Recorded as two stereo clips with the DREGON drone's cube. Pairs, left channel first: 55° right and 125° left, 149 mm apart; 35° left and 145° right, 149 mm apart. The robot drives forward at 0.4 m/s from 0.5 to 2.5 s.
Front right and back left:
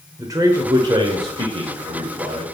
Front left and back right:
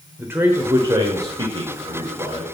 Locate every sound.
0.2 s a man speaking: 155° left, 0.9 m; by 2.5 s 170° left, 1.4 m